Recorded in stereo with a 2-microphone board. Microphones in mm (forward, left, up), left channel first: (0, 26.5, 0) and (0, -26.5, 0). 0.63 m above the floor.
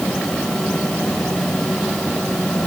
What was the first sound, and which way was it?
Only background noise.